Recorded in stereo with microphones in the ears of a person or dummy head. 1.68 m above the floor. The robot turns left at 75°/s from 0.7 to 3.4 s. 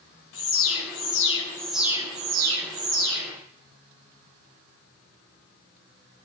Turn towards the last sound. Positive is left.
turn(degrees=-125)